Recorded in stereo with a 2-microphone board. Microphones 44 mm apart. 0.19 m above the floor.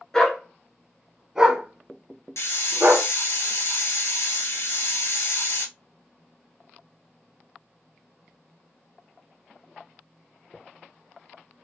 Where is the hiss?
75° left (ahead or behind), 1.2 m.